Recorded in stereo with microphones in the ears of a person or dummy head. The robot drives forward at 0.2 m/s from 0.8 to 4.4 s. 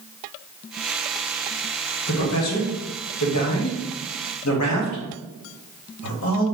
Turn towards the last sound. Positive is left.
turn(degrees=70)  # may be behind; listen again after turning